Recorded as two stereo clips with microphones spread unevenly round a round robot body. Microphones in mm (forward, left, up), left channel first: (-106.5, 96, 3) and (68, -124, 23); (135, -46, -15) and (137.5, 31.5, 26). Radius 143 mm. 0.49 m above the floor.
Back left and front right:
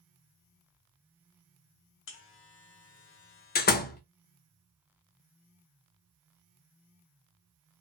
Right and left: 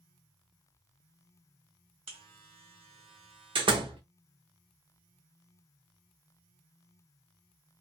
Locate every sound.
2.1 s a buzzer: 85° left, 0.8 m
3.5 s a door slam: 110° left, 0.5 m